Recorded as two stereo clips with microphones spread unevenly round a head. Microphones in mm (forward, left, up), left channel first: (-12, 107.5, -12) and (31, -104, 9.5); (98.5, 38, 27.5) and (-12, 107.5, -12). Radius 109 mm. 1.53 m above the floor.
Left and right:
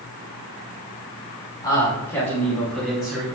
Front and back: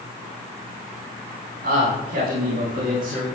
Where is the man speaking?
175° left, 6 m; by 3.2 s 165° right, 5 m.